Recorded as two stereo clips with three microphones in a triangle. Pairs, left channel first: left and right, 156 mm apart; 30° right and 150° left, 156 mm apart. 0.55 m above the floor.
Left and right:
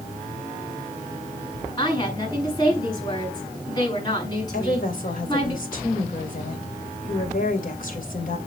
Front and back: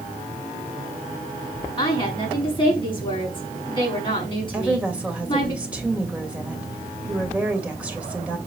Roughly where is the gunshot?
No gunshot in this recording.